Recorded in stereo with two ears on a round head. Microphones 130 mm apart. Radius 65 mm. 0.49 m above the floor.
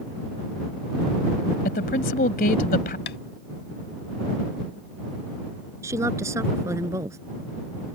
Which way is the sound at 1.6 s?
70° left (ahead or behind).